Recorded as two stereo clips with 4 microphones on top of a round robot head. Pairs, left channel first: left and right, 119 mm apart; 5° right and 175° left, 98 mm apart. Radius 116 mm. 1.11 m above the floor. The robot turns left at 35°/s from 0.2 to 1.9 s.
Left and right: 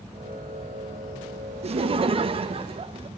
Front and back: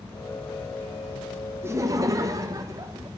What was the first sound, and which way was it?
Laughter, 120° right.